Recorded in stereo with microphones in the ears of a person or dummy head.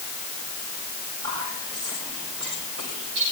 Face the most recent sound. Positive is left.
turn(degrees=-60)  # may be behind; listen again after turning